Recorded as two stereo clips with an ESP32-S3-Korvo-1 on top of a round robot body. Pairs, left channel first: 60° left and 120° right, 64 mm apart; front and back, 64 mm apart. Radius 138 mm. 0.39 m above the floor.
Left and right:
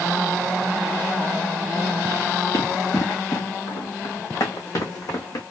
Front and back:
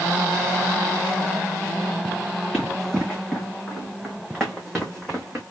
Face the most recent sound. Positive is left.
turn(degrees=85)